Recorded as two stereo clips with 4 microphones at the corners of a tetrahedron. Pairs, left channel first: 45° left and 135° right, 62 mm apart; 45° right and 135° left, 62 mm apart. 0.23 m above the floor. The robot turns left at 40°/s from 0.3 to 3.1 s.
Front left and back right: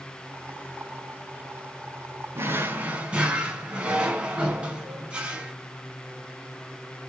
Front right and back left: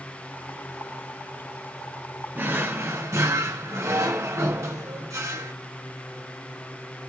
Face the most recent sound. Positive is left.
turn(degrees=155)